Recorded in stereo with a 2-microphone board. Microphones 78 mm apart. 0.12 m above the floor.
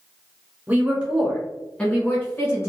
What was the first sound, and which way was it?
A woman speaking, 20° right (ahead or behind).